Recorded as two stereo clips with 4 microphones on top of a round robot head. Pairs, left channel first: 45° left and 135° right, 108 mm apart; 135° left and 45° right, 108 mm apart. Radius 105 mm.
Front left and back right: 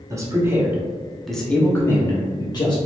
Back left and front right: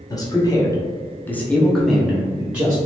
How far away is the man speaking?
About 1.0 m.